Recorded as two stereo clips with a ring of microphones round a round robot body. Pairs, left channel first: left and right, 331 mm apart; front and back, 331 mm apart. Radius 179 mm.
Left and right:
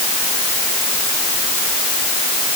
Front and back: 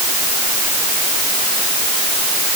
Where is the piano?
I don't hear a piano.